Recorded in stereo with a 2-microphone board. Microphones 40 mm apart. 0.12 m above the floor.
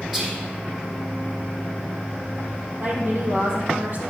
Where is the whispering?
Centre (ahead or behind), 4.5 m.